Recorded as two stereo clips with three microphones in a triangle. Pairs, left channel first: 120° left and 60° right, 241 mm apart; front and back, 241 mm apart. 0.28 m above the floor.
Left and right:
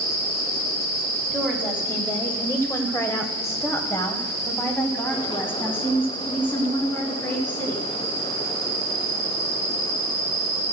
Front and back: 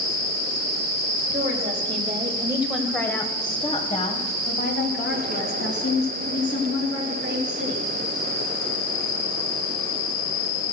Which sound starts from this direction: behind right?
A woman speaking, at 1.3 s.